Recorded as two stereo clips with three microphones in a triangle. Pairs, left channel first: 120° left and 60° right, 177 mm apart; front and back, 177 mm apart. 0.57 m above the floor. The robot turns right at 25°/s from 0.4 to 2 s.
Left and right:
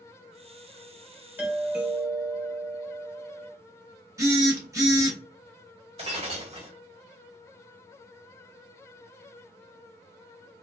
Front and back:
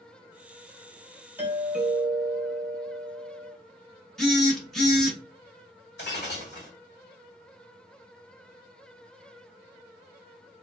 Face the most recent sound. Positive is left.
turn(degrees=-5)